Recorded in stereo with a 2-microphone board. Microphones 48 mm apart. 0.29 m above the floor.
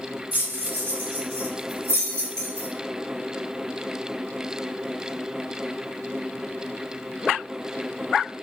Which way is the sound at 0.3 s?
45° right (ahead or behind).